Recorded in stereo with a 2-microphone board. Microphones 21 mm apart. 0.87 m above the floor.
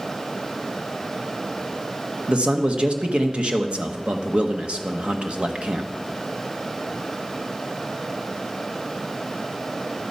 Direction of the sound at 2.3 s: 60° right (ahead or behind).